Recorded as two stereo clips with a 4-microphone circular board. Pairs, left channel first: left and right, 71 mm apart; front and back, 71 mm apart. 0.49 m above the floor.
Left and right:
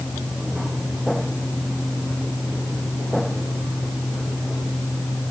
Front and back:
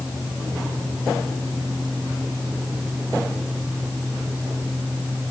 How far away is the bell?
I don't hear a bell.